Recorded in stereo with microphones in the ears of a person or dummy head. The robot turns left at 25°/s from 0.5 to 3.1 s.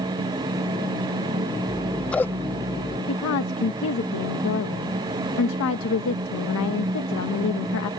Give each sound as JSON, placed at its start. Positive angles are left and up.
{"t": 1.7, "sound": "scissors", "azimuth_deg": 180}
{"t": 3.1, "sound": "a woman speaking", "side_deg": 75}